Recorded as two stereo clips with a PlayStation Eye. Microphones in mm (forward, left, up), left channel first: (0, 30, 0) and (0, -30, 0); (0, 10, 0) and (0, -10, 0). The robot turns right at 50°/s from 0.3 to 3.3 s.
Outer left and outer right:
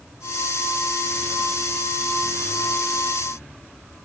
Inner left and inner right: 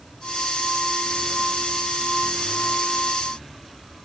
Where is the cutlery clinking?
I don't hear cutlery clinking.